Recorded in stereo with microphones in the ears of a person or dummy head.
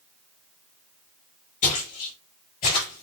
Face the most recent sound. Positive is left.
turn(degrees=45)  # may be behind; listen again after turning